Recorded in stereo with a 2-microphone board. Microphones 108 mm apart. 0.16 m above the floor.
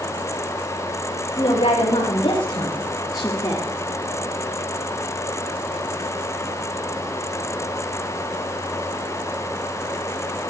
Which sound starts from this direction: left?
A woman speaking, at 1.4 s.